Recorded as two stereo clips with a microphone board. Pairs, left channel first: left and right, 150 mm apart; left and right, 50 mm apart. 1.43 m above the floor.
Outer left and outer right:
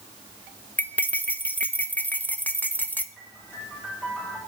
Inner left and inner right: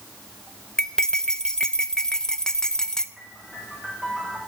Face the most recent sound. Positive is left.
turn(degrees=0)  # may be behind; listen again after turning